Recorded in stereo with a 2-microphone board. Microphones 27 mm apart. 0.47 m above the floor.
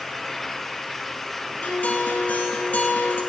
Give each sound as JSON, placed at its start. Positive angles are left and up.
{"t": 1.6, "sound": "a guitar", "side_deg": 65, "distance_m": 2.5}